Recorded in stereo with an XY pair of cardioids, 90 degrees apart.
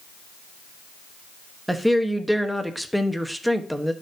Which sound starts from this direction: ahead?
A woman speaking, at 1.7 s.